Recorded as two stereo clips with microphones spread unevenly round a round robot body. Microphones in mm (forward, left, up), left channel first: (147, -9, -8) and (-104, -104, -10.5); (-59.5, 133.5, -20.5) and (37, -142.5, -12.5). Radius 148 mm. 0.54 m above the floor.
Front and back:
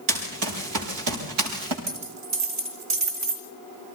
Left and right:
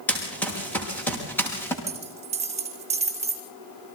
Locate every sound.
0.1 s running footsteps: 165° right, 6.5 m
1.9 s a dropped coin: 140° right, 3 m